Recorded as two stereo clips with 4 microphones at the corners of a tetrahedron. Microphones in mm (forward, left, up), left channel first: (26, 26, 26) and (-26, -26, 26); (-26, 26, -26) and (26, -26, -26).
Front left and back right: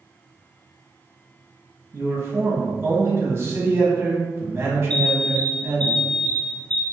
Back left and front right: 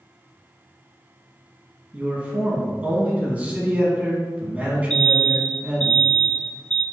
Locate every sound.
1.9 s a man speaking: 100° right, 1.2 m
4.9 s an alarm: 80° left, 0.8 m